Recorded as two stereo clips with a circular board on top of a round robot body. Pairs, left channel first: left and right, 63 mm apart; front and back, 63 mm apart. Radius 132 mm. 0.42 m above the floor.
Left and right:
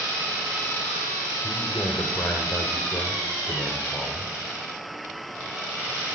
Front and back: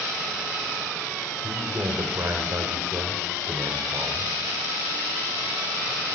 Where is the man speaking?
140° left, 2.5 m.